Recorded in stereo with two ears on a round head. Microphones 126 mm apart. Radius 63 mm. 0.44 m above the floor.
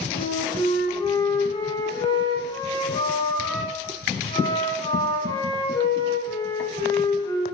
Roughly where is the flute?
Left.